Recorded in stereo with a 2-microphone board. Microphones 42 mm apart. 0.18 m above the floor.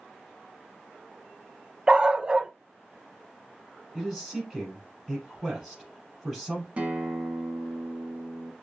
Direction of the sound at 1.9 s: 25° right (ahead or behind).